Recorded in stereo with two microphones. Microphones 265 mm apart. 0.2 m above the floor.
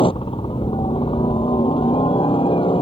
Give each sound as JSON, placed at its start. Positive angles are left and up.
{"t": 0.0, "sound": "a helicopter", "side_deg": 20}